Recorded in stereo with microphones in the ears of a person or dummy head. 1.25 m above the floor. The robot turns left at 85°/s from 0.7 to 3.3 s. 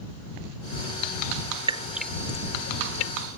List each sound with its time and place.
1.7 s dripping: 35° right (ahead or behind); by 3.1 s 90° left